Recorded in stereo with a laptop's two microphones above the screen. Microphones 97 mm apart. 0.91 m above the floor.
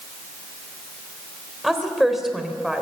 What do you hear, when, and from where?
1.6 s a woman speaking: 5° right (ahead or behind), 3.5 m